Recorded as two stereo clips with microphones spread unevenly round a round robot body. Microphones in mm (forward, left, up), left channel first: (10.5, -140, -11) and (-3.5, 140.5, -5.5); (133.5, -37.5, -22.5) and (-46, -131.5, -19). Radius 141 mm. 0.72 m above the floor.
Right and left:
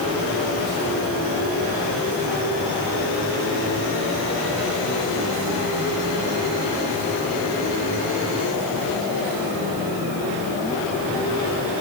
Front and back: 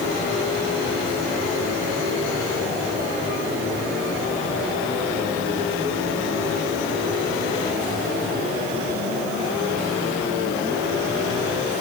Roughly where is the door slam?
I don't hear a door slam.